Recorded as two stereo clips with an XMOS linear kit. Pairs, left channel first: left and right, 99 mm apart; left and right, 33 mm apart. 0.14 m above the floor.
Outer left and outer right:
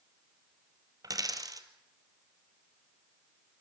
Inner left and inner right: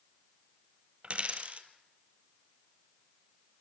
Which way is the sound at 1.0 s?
40° right (ahead or behind).